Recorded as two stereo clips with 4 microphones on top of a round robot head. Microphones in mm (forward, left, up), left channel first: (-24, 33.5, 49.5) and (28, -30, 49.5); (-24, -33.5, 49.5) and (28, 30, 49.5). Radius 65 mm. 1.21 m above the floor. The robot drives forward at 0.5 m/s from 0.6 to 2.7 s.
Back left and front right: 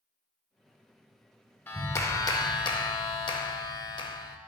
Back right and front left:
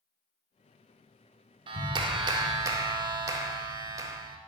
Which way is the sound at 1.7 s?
65° left.